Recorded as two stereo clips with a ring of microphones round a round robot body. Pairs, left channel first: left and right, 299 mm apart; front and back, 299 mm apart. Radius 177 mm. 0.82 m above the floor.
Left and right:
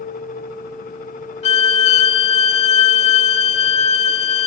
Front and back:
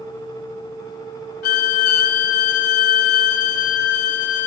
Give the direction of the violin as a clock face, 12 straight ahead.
11 o'clock.